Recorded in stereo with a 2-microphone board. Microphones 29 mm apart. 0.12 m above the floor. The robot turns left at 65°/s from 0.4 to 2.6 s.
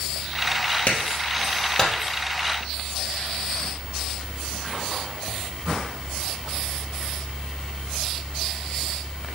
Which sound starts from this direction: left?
A clap, at 0.9 s.